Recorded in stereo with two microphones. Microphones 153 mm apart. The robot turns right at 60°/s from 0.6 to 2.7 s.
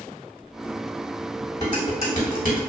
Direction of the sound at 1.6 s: 25° left (ahead or behind).